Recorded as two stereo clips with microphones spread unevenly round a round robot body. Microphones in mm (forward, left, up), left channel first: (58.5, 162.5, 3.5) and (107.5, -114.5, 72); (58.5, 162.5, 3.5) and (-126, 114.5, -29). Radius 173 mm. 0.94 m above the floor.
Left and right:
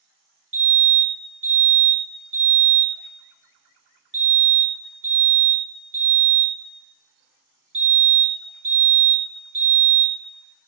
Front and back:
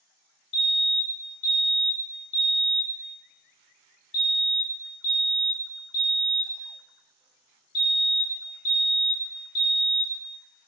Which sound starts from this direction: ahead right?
A fire alarm, at 0.5 s.